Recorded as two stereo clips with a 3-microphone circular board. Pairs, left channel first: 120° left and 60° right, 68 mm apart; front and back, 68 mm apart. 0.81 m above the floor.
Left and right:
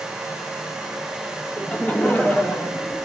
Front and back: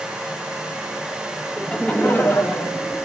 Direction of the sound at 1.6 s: 70° left.